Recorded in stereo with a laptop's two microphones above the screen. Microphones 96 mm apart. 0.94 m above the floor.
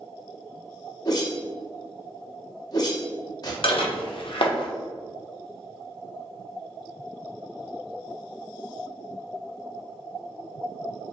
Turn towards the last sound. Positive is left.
turn(degrees=65)  # may be behind; listen again after turning